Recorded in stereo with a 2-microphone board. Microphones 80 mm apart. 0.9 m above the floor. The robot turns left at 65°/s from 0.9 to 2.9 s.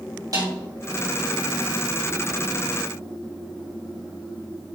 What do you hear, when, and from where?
0.3 s a snare drum: 50° right (ahead or behind), 3.5 m